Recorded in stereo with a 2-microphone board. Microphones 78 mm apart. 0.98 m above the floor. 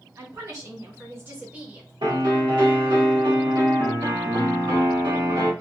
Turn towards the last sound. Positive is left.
turn(degrees=-80)